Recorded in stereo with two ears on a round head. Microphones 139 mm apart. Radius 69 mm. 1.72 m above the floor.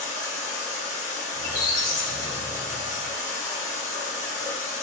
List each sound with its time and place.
0.0 s running water: 20° left (ahead or behind), 1.1 m
1.3 s a squeak: 55° left (ahead or behind), 1.2 m